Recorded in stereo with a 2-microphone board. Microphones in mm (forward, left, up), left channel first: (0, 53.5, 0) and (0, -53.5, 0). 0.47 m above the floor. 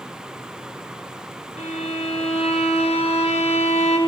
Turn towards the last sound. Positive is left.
turn(degrees=85)